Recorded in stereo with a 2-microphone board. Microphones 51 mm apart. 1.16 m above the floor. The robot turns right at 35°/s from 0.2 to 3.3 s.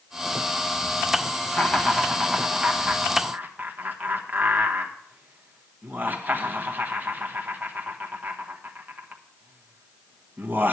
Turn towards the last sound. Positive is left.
turn(degrees=-35)  # may be behind; listen again after turning